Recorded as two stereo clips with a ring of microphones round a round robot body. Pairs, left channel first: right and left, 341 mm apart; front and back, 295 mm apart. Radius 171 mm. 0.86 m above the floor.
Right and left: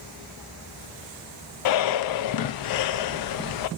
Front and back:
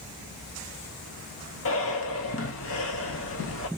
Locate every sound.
1.6 s breathing: 55° right, 0.5 m